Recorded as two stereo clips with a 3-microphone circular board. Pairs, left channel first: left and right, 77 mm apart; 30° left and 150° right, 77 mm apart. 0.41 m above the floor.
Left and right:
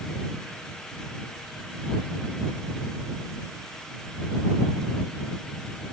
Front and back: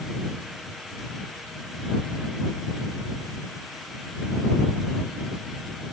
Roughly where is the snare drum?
I don't hear a snare drum.